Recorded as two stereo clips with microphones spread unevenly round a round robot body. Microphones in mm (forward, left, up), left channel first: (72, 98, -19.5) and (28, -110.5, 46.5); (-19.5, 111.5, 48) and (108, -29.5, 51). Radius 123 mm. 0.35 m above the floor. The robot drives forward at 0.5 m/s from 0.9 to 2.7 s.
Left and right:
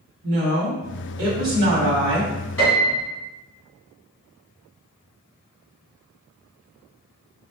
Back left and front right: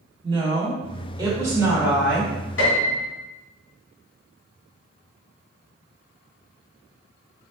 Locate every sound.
0.2 s a woman speaking: 95° right, 1.2 m; by 2.3 s 140° right, 1.4 m
2.6 s a piano: 150° left, 2 m; by 3.1 s 155° left, 2 m